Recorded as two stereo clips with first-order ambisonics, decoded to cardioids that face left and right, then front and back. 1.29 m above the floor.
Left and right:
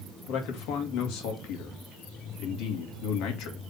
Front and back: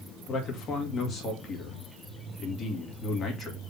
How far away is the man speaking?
About 2 m.